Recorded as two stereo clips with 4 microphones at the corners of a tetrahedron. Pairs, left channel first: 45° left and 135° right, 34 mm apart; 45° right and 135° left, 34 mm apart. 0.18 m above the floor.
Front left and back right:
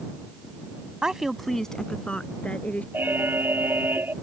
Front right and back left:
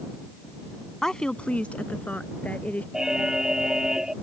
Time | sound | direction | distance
1.0 | a woman speaking | 100° right | ?
2.9 | an alarm | 150° right | ?